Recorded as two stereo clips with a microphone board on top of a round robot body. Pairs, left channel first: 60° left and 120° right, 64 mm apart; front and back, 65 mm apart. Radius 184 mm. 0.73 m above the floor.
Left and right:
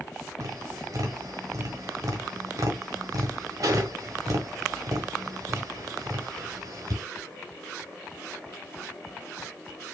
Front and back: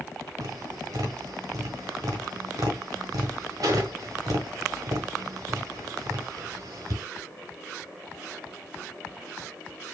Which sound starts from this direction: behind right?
Tapping, at 0.4 s.